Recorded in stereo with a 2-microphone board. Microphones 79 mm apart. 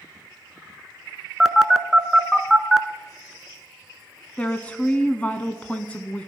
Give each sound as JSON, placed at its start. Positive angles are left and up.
{"t": 1.4, "sound": "a phone buzzing", "side_deg": 0, "distance_m": 0.8}
{"t": 4.4, "sound": "a woman speaking", "side_deg": 15, "distance_m": 1.1}